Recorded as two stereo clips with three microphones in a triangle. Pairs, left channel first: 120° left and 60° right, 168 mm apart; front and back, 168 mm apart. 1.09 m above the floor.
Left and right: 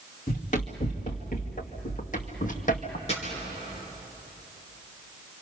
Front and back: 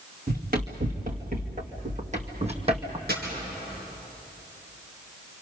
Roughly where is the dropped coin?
Behind.